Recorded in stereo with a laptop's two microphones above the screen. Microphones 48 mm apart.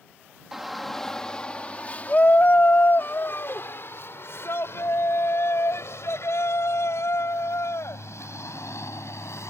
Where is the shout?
5° right (ahead or behind); by 9.5 s 75° left (ahead or behind).